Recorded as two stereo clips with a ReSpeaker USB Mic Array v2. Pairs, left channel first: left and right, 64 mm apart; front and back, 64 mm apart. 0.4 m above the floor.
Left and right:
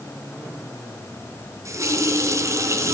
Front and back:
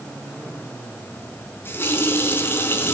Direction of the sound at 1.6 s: 55° right.